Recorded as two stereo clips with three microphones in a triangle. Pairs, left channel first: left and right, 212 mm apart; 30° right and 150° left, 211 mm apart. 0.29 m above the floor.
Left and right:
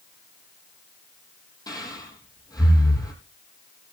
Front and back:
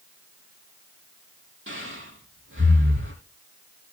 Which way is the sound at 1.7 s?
160° left.